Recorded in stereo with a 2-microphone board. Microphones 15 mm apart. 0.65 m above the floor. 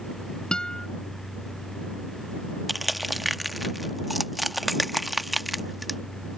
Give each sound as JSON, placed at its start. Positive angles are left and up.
{"t": 0.5, "sound": "a guitar", "side_deg": 55}
{"t": 2.7, "sound": "crushing", "side_deg": -10}